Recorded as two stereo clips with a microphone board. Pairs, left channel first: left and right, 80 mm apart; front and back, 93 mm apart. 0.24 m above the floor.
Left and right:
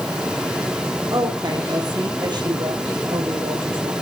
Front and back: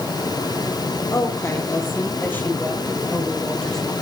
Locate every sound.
1.1 s a woman speaking: 55° right, 6.5 m; by 3.9 s 85° right, 6.5 m